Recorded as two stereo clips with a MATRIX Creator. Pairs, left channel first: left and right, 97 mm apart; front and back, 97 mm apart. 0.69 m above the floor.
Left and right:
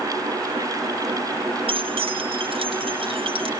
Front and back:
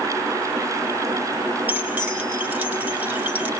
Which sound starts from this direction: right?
Keys jangling, at 1.7 s.